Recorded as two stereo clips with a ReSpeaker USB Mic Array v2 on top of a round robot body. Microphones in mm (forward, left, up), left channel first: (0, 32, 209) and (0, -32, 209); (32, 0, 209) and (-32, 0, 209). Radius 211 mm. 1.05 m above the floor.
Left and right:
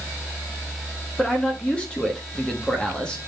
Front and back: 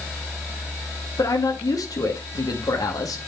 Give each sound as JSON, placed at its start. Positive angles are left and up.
{"t": 1.2, "sound": "a man speaking", "azimuth_deg": 15, "distance_m": 1.9}